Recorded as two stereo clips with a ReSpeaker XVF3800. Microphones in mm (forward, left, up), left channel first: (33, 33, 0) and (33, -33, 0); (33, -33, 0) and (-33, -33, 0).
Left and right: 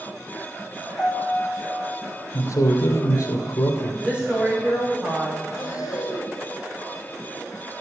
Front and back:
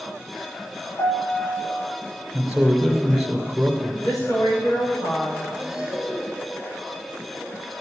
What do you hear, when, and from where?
1.0 s a piano: 20° left, 4 m
2.3 s a man speaking: 90° left, 2.5 m
4.0 s a woman speaking: 15° right, 7 m
5.5 s breathing: 95° left, 3.5 m